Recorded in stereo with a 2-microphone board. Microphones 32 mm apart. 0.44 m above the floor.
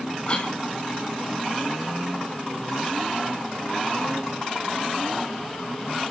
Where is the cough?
35° left (ahead or behind), 1.0 m.